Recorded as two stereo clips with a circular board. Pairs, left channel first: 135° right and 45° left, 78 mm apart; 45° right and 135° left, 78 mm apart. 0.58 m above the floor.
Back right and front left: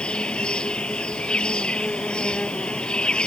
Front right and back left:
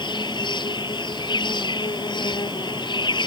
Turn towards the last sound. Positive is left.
turn(degrees=-55)